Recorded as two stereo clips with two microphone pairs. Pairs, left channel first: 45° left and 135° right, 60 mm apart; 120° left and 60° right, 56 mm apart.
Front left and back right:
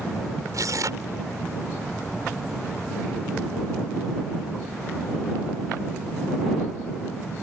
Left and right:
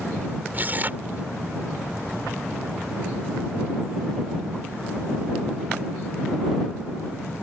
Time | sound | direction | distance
0.5 | tearing paper | 115° right | ?